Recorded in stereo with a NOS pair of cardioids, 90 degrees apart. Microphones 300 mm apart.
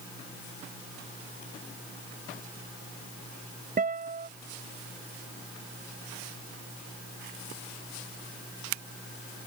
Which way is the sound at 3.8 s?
30° right.